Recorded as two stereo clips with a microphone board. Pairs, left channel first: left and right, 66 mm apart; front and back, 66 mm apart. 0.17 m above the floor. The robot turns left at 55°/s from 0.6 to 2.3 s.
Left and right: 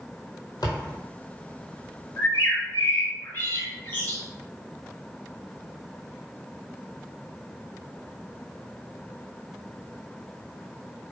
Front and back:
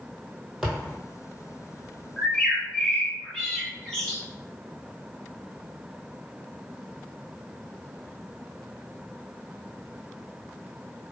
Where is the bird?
80° left, 1.1 m; by 4.2 s 70° left, 1.1 m.